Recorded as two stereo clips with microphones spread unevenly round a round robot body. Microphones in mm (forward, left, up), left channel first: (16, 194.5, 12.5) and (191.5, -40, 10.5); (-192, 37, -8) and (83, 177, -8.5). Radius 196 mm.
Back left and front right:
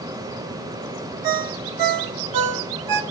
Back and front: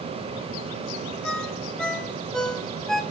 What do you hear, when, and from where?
1.2 s a ringtone: 65° right, 1.0 m